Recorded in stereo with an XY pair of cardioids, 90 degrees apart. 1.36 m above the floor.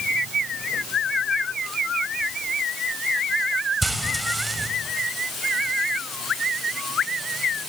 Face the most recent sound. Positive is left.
turn(degrees=-15)